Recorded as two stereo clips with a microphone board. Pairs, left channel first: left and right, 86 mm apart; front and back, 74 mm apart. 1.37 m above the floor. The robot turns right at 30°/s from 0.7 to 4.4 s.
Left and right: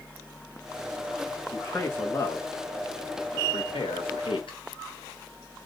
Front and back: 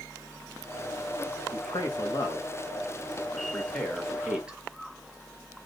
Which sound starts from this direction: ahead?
A man speaking, at 1.5 s.